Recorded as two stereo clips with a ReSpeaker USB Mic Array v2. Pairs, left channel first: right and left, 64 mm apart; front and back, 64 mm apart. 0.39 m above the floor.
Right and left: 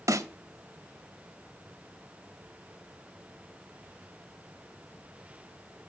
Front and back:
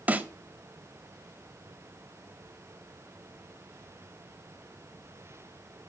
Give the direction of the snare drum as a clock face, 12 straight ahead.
8 o'clock.